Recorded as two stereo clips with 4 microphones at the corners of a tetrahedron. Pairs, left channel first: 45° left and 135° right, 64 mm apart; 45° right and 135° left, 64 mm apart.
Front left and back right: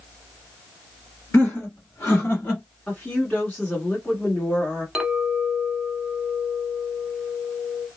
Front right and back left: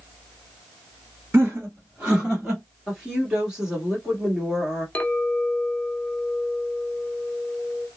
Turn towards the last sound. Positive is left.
turn(degrees=-65)